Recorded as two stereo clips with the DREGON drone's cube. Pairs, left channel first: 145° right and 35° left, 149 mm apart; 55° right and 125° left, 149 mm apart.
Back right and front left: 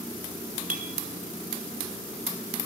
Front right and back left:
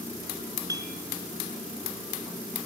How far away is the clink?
About 3.5 m.